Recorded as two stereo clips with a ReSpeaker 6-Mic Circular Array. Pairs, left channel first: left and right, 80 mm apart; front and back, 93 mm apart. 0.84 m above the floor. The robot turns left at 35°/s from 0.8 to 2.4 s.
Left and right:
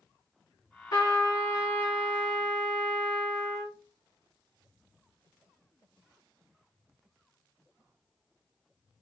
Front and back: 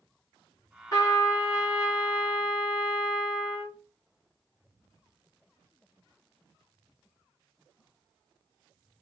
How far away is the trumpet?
About 1.7 m.